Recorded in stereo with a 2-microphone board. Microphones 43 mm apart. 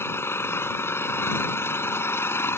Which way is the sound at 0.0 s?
75° left (ahead or behind).